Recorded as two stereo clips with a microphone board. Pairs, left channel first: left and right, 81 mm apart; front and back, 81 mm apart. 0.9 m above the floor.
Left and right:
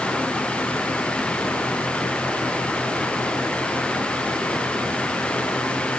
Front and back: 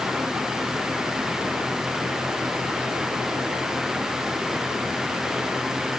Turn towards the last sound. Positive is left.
No sound to turn to.